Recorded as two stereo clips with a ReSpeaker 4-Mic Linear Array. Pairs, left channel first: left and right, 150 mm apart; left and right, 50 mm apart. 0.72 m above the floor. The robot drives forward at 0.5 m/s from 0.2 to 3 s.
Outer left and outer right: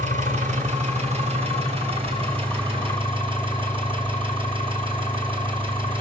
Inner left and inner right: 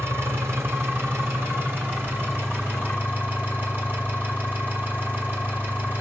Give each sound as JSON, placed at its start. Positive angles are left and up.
{"t": 0.0, "sound": "an engine running", "side_deg": -50, "distance_m": 2.5}